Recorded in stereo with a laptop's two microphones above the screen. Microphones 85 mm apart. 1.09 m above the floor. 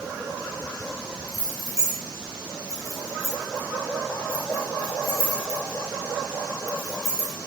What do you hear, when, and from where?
1.3 s keys jangling: 40° left (ahead or behind), 3 m